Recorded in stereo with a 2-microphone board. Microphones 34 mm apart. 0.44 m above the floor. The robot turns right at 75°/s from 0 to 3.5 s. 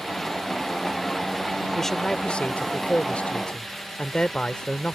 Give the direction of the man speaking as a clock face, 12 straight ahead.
12 o'clock.